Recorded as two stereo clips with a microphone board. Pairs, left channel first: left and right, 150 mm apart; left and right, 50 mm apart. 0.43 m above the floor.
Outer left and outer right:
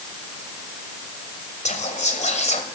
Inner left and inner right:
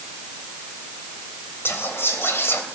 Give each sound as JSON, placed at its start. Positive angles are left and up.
{"t": 1.6, "sound": "whispering", "side_deg": 50, "distance_m": 2.5}